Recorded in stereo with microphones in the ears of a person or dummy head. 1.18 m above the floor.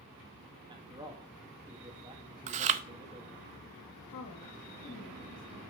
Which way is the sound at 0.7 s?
20° right (ahead or behind).